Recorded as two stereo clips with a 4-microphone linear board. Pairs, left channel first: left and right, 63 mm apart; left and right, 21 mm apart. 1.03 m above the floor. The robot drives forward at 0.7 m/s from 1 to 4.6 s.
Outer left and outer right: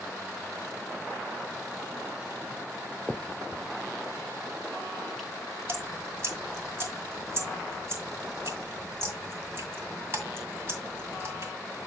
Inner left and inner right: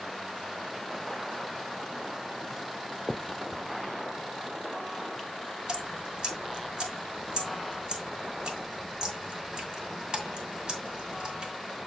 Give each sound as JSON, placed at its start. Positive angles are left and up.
{"t": 3.1, "sound": "a finger snap", "side_deg": 10, "distance_m": 0.6}
{"t": 5.7, "sound": "dripping", "side_deg": -40, "distance_m": 2.0}